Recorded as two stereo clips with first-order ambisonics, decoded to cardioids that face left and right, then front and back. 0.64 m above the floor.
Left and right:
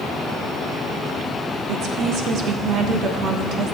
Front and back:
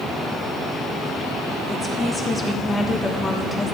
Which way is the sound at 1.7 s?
80° right.